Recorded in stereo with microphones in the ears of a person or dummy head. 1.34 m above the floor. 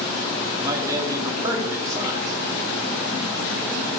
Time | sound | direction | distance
0.6 | a man speaking | 20° right (ahead or behind) | 2.5 m